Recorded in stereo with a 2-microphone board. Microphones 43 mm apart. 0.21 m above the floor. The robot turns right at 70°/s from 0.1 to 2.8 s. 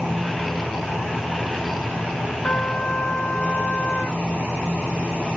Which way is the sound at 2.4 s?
40° left (ahead or behind).